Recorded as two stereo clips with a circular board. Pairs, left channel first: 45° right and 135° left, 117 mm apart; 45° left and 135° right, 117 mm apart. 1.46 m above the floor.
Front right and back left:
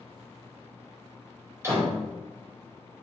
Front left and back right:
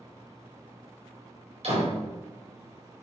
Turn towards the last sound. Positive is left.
turn(degrees=-160)